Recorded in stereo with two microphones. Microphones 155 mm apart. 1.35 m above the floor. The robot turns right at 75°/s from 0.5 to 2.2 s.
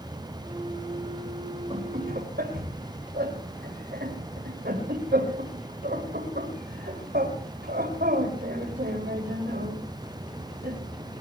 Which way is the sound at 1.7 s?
35° right (ahead or behind).